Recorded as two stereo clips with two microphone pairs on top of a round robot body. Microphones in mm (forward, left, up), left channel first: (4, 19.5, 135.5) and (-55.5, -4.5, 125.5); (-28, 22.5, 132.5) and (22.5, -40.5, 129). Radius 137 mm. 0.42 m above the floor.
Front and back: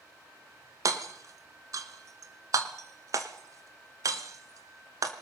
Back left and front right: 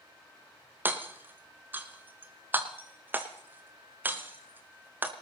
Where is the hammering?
120° right, 1.5 m.